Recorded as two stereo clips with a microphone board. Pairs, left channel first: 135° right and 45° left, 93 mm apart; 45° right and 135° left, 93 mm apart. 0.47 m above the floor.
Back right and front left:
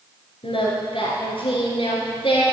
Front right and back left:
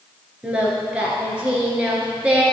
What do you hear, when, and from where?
0.4 s singing: 145° right, 2 m